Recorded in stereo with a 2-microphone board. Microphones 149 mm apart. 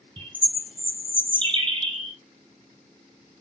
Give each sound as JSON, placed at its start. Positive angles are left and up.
{"t": 0.2, "sound": "a bird", "side_deg": -35, "distance_m": 0.9}